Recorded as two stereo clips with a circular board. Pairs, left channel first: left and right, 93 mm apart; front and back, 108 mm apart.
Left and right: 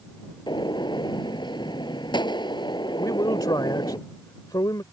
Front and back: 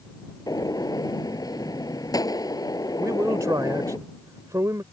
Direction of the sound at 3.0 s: 125° left.